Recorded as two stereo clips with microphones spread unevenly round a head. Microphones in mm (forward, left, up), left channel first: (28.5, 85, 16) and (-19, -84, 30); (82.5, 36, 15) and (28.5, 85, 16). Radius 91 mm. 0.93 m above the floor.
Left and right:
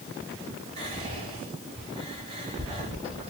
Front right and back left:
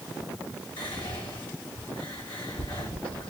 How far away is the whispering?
About 3 m.